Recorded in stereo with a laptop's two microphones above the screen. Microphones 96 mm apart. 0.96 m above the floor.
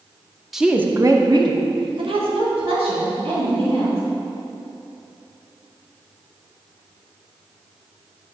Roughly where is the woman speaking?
Centre.